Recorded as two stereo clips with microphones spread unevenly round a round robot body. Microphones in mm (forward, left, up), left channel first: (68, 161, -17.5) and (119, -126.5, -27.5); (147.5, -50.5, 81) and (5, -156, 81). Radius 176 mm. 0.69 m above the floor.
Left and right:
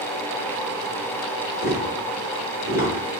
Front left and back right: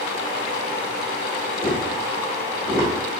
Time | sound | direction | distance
1.6 | tapping | 115° left | 1.6 m